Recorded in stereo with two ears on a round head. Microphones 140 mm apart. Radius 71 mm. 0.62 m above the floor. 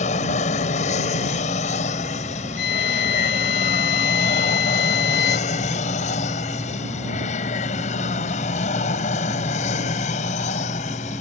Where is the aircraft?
45° left (ahead or behind).